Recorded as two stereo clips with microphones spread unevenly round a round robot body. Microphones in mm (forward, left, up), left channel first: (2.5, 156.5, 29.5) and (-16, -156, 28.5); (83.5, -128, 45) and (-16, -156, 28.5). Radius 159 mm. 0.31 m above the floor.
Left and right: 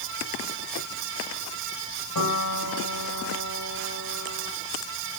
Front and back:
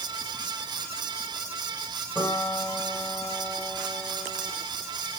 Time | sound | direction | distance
2.1 | a piano | 115° left | 7.5 m